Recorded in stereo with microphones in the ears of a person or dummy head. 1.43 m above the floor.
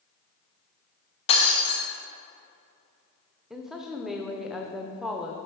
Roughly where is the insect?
I don't hear an insect.